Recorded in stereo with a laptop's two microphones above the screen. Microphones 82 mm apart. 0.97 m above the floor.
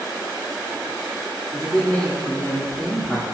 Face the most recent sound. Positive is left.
turn(degrees=20)  # may be behind; listen again after turning